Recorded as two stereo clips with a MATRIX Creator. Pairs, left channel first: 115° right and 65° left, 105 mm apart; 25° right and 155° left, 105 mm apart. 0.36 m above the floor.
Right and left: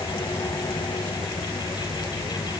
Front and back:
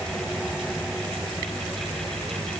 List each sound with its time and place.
Only background noise.